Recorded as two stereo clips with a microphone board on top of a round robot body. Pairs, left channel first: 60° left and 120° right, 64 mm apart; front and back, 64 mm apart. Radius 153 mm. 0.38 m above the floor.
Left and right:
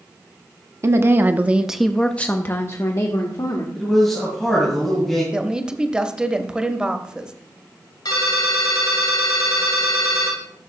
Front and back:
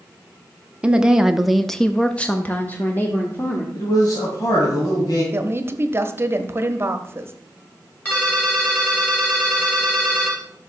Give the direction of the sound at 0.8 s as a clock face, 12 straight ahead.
4 o'clock.